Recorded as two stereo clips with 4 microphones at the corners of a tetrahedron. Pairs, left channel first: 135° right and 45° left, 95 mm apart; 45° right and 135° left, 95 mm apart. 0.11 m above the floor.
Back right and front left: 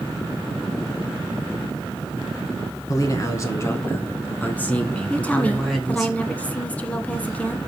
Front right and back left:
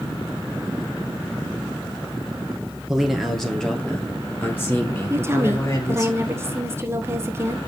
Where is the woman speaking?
160° left, 1.2 m.